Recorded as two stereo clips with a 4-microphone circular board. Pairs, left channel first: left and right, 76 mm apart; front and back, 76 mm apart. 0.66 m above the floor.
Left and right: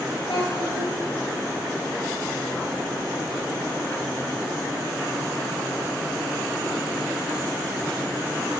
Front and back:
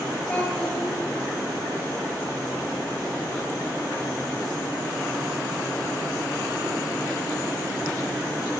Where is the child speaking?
75° left, 4 m.